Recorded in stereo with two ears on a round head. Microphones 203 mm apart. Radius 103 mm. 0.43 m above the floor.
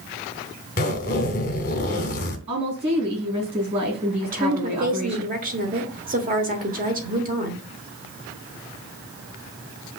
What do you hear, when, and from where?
0.8 s a zipper: 40° left (ahead or behind), 0.8 m
2.5 s a woman speaking: 25° right (ahead or behind), 3.5 m
4.2 s a woman speaking: 40° right (ahead or behind), 0.9 m